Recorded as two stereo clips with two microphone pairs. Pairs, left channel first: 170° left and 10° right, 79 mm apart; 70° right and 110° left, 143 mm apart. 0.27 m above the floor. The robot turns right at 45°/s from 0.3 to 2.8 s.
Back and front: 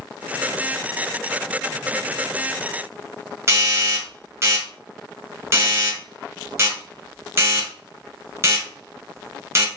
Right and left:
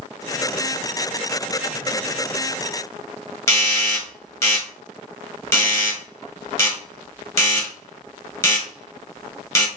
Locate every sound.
3.5 s a doorbell: 20° right, 1.6 m